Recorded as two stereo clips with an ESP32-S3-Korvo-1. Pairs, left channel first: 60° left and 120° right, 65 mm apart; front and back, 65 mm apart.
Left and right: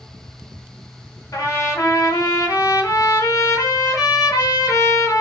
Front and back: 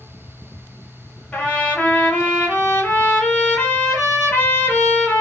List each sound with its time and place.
1.3 s a trumpet: 65° left, 1.0 m